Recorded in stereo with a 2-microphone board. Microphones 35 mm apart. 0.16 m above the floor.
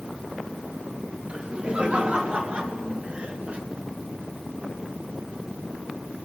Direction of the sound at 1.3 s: 35° right (ahead or behind).